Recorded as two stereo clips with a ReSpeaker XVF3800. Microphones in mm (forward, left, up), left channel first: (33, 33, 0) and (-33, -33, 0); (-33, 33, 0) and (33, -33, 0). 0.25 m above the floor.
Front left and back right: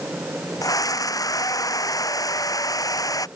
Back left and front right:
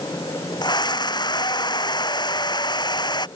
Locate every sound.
0.6 s a scream: 95° left